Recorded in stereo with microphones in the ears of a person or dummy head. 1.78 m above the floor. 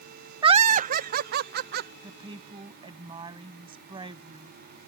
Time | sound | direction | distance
0.4 | laughter | 25° right (ahead or behind) | ?
2.0 | a woman speaking | 30° right (ahead or behind) | ?